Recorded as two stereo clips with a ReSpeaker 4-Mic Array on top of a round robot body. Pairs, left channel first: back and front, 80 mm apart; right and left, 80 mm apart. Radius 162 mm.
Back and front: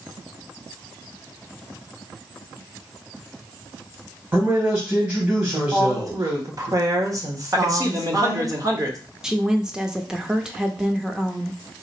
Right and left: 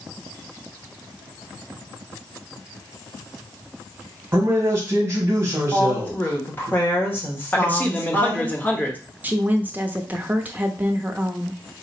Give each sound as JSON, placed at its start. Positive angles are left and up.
{"t": 4.3, "sound": "a man speaking", "azimuth_deg": 55, "distance_m": 1.4}
{"t": 5.7, "sound": "a woman speaking", "azimuth_deg": -30, "distance_m": 1.6}
{"t": 7.5, "sound": "a man speaking", "azimuth_deg": -25, "distance_m": 1.2}
{"t": 9.2, "sound": "a woman speaking", "azimuth_deg": 70, "distance_m": 0.9}